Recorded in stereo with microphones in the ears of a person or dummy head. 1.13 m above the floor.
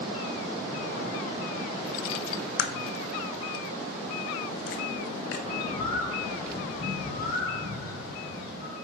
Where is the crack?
65° left (ahead or behind), 1.0 m.